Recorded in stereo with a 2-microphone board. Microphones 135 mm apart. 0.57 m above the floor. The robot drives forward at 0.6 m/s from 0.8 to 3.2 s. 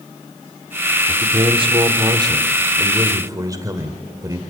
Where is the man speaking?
45° right (ahead or behind), 1.3 m; by 4.4 s 25° right (ahead or behind), 2.0 m.